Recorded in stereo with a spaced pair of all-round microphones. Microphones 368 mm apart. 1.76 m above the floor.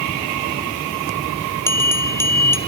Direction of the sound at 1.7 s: 5° left (ahead or behind).